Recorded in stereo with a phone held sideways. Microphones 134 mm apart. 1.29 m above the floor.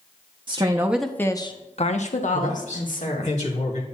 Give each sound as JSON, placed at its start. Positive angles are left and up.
{"t": 0.5, "sound": "a woman speaking", "side_deg": -35, "distance_m": 0.8}
{"t": 2.3, "sound": "a man speaking", "side_deg": 65, "distance_m": 2.5}